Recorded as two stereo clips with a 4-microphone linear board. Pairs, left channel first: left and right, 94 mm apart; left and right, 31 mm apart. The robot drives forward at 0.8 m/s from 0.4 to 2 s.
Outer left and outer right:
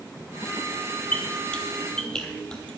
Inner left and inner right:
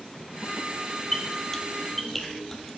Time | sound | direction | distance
1.1 | a squeak | 15° left (ahead or behind) | 1.1 m